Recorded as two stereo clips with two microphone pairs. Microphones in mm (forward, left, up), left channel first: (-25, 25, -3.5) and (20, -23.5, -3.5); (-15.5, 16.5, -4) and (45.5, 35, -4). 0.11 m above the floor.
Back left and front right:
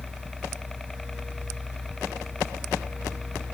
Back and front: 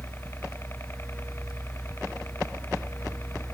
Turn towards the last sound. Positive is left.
turn(degrees=-150)